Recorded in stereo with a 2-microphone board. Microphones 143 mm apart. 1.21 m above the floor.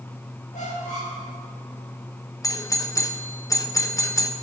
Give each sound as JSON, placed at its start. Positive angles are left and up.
{"t": 0.5, "sound": "a squeak", "side_deg": 60, "distance_m": 3.0}
{"t": 2.4, "sound": "a doorbell", "side_deg": 20, "distance_m": 0.6}